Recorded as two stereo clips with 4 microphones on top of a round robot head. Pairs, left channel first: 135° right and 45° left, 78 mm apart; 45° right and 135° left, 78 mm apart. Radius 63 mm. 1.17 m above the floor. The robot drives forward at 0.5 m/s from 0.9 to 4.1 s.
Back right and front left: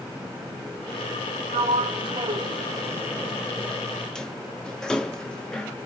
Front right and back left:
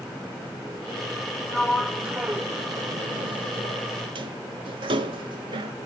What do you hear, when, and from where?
1.5 s a sliding door: 40° left, 0.8 m; by 5.7 s 145° left, 0.8 m